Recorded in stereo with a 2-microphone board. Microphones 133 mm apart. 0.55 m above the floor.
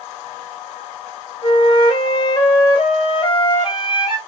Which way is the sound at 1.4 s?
35° left (ahead or behind).